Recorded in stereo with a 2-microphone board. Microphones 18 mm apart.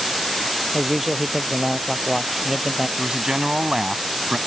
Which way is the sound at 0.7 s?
10° right (ahead or behind).